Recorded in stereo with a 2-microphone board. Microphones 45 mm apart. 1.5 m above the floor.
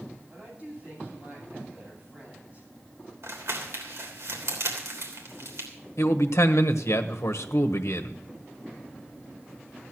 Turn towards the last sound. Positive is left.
turn(degrees=85)